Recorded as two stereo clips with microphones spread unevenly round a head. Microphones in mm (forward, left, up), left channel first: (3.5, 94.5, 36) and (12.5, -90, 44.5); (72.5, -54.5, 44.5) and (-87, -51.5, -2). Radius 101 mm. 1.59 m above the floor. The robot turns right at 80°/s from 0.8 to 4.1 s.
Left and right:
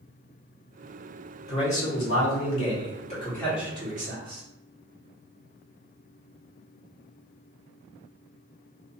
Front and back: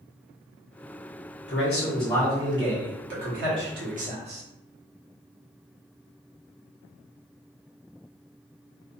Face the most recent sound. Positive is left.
turn(degrees=-130)